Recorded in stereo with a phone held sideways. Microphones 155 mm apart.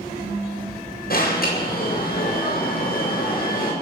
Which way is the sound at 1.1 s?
75° left (ahead or behind).